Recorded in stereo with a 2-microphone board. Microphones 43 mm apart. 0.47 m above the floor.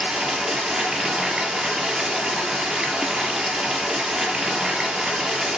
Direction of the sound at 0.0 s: 20° right (ahead or behind).